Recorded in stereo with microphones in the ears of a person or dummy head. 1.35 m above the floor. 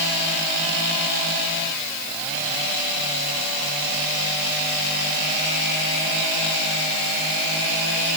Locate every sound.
Only background noise.